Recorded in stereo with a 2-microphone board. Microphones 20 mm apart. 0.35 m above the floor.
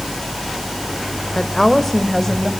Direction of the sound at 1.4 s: 20° left (ahead or behind).